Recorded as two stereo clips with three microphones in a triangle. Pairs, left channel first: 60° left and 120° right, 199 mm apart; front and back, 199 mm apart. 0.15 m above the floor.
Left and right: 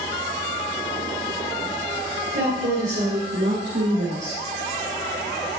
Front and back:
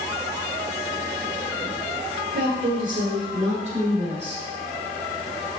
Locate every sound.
2.3 s a woman speaking: 150° right, 3 m; by 4.4 s 115° right, 4.5 m